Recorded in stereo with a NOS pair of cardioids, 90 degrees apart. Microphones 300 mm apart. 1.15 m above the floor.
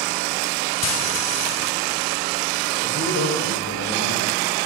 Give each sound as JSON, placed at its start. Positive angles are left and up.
{"t": 0.8, "sound": "frying", "azimuth_deg": 60, "distance_m": 2.5}
{"t": 2.8, "sound": "a man speaking", "azimuth_deg": 65, "distance_m": 6.5}